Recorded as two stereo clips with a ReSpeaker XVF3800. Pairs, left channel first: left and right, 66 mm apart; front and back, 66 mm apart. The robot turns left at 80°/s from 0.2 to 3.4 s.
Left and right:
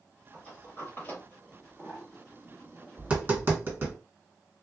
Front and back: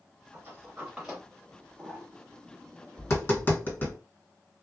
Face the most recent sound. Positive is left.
turn(degrees=-45)